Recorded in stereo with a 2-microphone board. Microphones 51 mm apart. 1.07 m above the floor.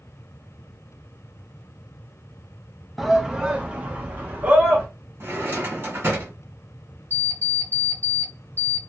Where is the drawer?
50° right (ahead or behind), 1.6 m.